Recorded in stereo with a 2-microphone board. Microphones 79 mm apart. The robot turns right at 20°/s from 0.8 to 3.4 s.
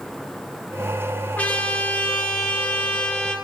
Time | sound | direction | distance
1.4 | a trumpet | 20° left (ahead or behind) | 1.1 m